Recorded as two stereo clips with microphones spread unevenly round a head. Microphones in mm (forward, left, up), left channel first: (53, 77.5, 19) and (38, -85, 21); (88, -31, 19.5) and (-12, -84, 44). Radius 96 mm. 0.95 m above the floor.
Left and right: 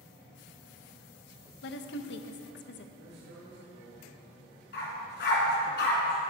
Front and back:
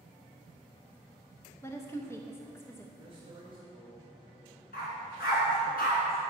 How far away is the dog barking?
About 2.5 m.